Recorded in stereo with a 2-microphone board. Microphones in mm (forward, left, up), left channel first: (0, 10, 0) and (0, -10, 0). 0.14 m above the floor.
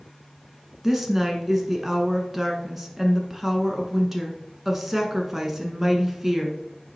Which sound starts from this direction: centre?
A woman speaking, at 0.8 s.